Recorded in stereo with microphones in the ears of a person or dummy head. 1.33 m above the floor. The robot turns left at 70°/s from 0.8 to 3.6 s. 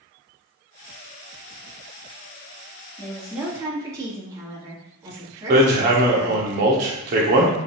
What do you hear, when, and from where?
3.0 s a woman speaking: 20° left, 2.5 m; by 6.5 s 20° right, 2.5 m
5.5 s hammering: 50° right (ahead or behind), 1.5 m